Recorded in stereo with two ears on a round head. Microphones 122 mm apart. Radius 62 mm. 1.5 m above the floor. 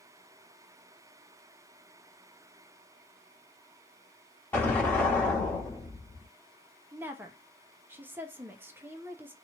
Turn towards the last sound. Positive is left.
turn(degrees=-15)  # may be behind; listen again after turning